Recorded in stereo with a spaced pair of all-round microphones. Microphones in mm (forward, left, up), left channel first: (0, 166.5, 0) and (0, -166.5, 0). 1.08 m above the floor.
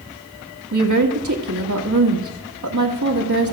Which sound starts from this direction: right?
A woman speaking, at 0.7 s.